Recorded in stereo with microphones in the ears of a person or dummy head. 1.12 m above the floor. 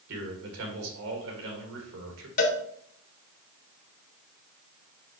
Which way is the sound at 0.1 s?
65° right (ahead or behind).